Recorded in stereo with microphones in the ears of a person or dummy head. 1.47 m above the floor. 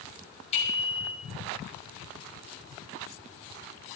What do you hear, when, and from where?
0.5 s a bicycle bell: 30° left (ahead or behind), 5.5 m